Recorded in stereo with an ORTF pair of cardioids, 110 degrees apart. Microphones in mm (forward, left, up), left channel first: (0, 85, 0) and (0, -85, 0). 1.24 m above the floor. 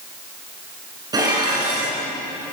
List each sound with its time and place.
1.1 s dishes clattering: 25° right, 10 m